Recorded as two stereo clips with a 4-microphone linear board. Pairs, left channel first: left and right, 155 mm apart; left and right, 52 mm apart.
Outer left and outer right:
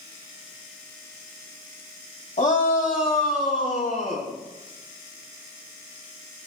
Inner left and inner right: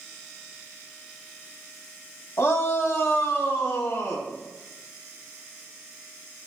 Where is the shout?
50° left (ahead or behind), 4 m; by 4.3 s 60° left (ahead or behind), 5 m.